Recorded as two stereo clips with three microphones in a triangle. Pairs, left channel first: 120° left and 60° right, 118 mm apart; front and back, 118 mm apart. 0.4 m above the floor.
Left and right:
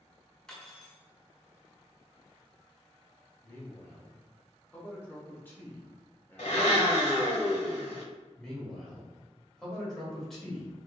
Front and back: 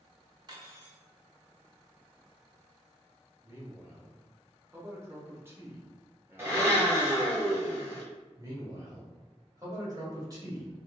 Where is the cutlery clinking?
160° right, 0.8 m.